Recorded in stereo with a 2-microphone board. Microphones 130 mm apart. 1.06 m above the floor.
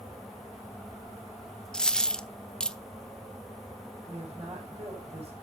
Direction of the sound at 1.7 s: 5° left (ahead or behind).